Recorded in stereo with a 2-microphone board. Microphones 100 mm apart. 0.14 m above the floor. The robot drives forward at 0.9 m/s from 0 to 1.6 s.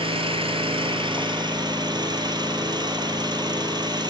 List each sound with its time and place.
0.0 s an engine running: 60° right (ahead or behind), 1.4 m; by 4.1 s 45° right (ahead or behind), 1.8 m